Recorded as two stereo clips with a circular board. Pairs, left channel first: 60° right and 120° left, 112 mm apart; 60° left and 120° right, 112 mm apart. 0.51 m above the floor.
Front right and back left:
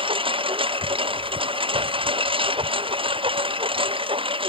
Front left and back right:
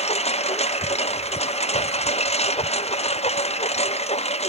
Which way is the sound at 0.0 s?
80° left.